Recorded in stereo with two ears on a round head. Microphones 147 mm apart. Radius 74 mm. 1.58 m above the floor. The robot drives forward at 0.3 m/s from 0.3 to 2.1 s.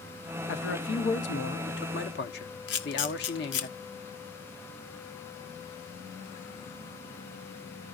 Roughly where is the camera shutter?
Left.